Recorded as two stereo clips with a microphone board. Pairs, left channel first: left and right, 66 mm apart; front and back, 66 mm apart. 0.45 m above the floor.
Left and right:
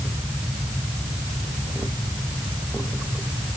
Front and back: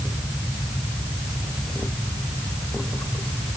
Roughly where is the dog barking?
I don't hear a dog barking.